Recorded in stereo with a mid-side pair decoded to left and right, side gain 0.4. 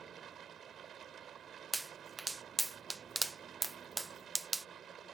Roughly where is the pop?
Ahead right.